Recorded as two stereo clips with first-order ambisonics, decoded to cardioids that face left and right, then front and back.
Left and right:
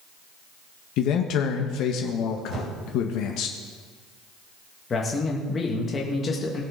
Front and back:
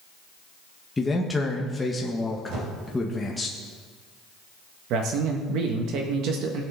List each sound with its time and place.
1.0 s a man speaking: 80° left, 1.0 m
2.5 s a whoosh: 140° right, 3 m
4.9 s a man speaking: 155° left, 1.4 m